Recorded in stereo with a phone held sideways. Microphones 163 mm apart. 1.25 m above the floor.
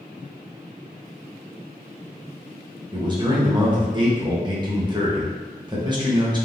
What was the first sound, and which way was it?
A man speaking, 25° right (ahead or behind).